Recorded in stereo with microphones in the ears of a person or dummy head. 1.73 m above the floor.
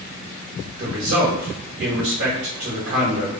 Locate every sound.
0.8 s a man speaking: 55° right (ahead or behind), 1.3 m